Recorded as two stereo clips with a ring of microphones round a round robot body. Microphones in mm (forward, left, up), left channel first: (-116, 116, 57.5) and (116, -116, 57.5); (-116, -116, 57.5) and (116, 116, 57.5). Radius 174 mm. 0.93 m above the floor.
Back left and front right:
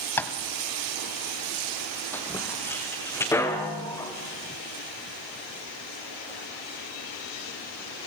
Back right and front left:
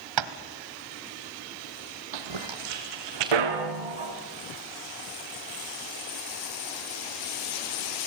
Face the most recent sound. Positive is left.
turn(degrees=55)